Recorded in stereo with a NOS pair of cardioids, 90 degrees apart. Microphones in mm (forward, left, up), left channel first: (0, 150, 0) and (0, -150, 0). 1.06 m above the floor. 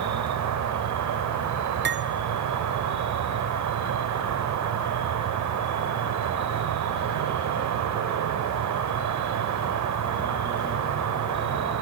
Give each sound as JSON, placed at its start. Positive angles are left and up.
{"t": 0.0, "sound": "an insect", "azimuth_deg": -65, "distance_m": 4.5}
{"t": 1.9, "sound": "cutlery clinking", "azimuth_deg": -35, "distance_m": 2.0}